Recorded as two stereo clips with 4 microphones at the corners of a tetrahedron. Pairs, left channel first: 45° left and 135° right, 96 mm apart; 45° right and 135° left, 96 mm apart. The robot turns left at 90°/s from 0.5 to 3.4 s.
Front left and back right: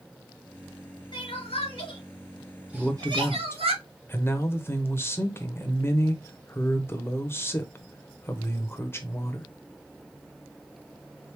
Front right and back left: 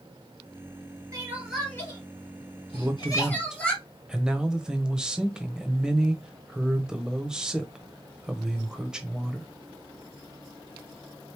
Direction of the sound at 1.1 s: 80° left.